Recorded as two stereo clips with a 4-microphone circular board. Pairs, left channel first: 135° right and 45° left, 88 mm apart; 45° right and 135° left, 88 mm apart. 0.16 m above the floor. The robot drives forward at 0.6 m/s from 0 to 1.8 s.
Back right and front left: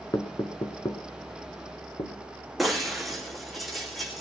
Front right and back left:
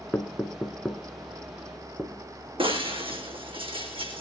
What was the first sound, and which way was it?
Knocking, 115° right.